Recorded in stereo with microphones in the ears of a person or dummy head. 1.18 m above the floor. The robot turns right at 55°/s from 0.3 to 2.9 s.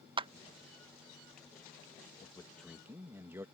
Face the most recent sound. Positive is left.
turn(degrees=-170)